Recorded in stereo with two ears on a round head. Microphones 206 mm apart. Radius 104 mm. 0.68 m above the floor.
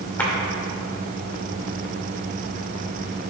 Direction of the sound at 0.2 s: 10° left (ahead or behind).